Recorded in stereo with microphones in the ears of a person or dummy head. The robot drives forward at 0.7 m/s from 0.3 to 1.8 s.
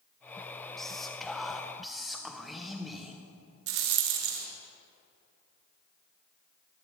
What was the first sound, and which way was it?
Whispering, 5° left (ahead or behind).